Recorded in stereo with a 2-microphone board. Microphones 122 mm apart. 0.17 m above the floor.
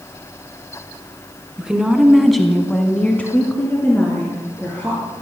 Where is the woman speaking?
10° right (ahead or behind), 1.9 m; by 5.0 s 15° left (ahead or behind), 3.5 m.